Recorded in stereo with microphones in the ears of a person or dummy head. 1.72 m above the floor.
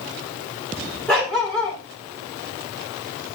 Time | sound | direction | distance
1.1 | a dog barking | 5° left (ahead or behind) | 1.8 m